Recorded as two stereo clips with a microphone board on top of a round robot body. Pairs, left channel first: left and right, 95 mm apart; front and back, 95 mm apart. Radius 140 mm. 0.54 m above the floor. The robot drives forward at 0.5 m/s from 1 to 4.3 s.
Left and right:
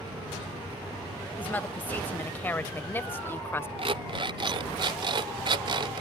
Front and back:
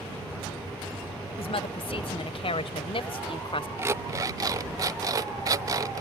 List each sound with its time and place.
1.4 s a woman speaking: 20° left; by 3.7 s 25° left
3.8 s an alarm clock: 115° right; by 6.0 s 125° right